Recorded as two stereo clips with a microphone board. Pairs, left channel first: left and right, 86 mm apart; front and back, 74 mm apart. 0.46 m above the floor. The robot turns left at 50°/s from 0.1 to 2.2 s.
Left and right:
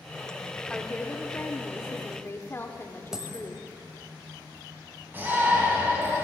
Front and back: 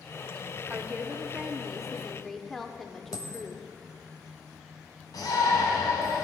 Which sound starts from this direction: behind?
A woman speaking, at 0.7 s.